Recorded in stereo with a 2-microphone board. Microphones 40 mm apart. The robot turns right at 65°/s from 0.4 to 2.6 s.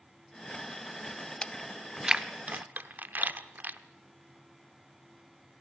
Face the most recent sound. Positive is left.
turn(degrees=-50)  # may be behind; listen again after turning